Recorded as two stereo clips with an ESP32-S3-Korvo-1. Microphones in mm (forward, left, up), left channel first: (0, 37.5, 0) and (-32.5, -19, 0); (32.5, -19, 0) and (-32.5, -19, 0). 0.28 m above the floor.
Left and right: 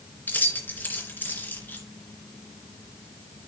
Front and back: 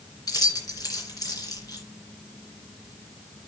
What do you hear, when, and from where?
0.3 s keys jangling: straight ahead, 2.5 m